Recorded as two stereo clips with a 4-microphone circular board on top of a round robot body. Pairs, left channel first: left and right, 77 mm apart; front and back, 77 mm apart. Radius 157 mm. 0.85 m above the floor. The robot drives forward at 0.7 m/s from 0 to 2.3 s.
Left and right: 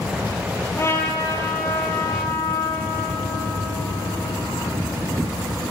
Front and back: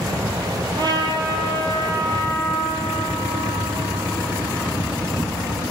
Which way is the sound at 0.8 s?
145° left.